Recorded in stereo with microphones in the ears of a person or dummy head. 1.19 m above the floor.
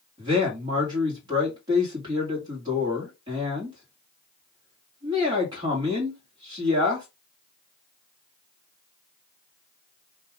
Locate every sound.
0.2 s a man speaking: 25° right (ahead or behind), 1.4 m